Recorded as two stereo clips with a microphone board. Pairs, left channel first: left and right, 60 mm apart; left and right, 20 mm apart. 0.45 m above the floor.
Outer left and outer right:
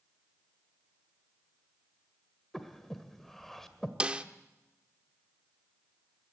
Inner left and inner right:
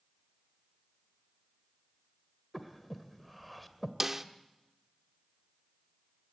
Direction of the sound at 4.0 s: 20° right (ahead or behind).